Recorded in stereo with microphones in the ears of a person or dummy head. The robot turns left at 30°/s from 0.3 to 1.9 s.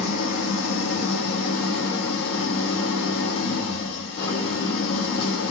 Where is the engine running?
115° left, 0.9 m; by 5.5 s 65° left, 0.9 m.